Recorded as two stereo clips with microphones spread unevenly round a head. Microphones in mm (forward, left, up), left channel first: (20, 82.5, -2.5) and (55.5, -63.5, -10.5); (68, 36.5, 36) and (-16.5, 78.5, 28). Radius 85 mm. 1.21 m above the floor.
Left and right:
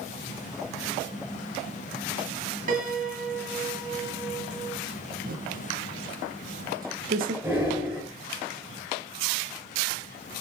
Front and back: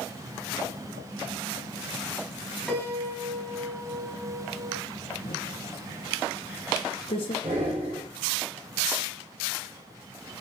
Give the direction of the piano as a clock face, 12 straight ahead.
4 o'clock.